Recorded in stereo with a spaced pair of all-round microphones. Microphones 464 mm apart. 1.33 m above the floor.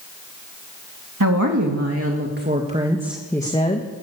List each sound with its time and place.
1.2 s a woman speaking: 40° right (ahead or behind), 2.5 m; by 3.9 s 20° left (ahead or behind), 1.8 m